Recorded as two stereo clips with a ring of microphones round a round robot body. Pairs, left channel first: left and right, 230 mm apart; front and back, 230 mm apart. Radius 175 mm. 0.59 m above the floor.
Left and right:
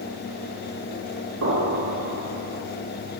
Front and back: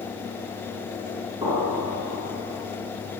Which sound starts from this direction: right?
An explosion, at 1.4 s.